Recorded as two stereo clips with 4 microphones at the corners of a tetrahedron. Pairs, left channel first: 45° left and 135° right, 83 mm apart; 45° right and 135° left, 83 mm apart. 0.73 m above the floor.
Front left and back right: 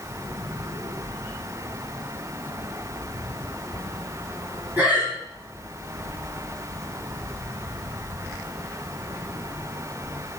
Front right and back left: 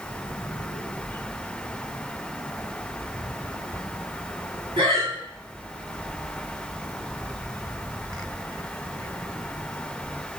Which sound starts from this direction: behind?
Breathing, at 4.8 s.